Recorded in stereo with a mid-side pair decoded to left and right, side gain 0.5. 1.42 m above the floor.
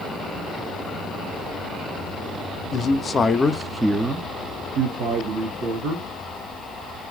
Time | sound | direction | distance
2.7 | a man speaking | 50° left | 0.8 m